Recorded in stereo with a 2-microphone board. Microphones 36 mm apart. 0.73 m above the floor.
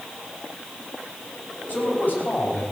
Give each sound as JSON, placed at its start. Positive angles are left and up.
{"t": 1.7, "sound": "a man speaking", "side_deg": 55, "distance_m": 4.5}